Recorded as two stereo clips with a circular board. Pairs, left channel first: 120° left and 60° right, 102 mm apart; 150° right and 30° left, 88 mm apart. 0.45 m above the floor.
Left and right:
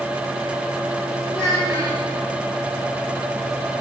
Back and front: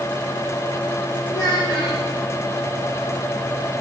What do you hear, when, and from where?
1.3 s a child speaking: 170° left, 6.5 m